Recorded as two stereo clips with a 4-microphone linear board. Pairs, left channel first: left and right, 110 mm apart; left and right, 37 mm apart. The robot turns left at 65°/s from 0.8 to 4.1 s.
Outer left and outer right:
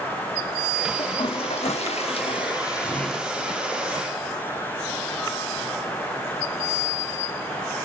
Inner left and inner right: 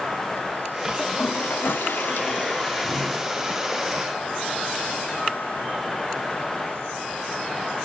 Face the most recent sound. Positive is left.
turn(degrees=-60)